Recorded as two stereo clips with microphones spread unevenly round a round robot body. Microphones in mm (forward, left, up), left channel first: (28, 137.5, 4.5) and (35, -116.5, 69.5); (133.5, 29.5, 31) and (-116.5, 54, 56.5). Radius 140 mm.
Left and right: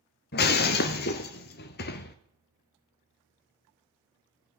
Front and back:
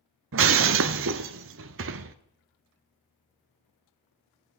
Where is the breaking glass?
155° left, 0.6 m.